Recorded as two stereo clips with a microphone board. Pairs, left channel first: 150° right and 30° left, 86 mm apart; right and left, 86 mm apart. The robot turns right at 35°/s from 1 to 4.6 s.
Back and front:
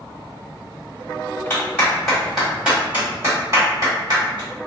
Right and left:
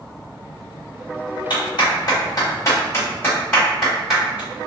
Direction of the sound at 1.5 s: 85° right.